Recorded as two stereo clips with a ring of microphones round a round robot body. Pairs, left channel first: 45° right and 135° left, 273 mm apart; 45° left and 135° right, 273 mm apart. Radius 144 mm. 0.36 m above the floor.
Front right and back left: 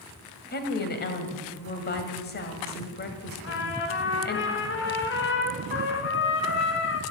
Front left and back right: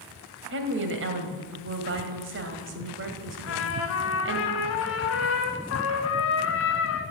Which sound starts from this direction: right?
A woman speaking, at 0.5 s.